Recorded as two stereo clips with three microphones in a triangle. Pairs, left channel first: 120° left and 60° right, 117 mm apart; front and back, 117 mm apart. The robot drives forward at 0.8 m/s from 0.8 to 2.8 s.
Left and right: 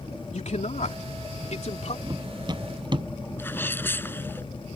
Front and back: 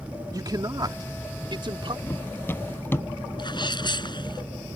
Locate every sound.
0.3 s a man speaking: 125° left; by 2.0 s 140° left
2.1 s running footsteps: 55° right
3.4 s a sneeze: 50° left